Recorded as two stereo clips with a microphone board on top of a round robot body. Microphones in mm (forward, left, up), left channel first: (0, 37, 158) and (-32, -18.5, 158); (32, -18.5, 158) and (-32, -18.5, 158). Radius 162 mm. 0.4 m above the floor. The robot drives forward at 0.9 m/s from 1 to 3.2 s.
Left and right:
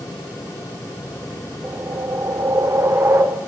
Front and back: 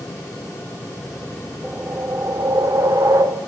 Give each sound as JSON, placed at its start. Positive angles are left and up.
{"t": 1.6, "sound": "a whoosh", "azimuth_deg": -125, "distance_m": 1.1}